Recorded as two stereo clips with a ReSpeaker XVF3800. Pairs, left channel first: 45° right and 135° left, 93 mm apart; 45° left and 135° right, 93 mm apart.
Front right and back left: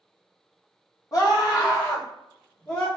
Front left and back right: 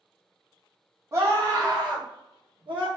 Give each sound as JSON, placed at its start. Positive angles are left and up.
{"t": 1.1, "sound": "a scream", "azimuth_deg": -80, "distance_m": 1.4}